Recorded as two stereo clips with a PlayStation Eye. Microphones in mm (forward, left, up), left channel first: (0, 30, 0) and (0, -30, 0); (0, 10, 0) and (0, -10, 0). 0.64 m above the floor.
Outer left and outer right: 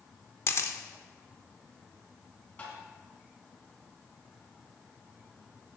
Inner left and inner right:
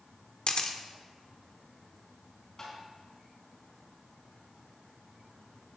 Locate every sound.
0.5 s a camera shutter: 50° left (ahead or behind), 1.0 m
2.6 s tapping: 35° left (ahead or behind), 4.5 m